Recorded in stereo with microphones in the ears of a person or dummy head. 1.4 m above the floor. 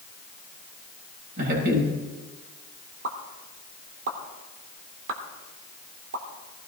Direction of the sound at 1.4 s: 50° right (ahead or behind).